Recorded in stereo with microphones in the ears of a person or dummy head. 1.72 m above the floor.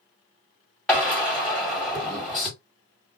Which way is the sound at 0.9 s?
5° left (ahead or behind).